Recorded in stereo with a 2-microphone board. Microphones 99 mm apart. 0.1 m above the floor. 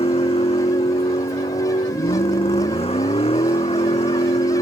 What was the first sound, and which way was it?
A vehicle, 80° left.